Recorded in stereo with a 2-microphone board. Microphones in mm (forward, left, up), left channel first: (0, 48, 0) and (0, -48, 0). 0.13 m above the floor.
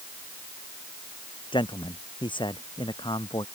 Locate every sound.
1.5 s a man speaking: 50° left (ahead or behind)